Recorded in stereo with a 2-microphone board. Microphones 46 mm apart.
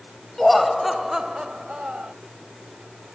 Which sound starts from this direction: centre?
Laughter, at 0.4 s.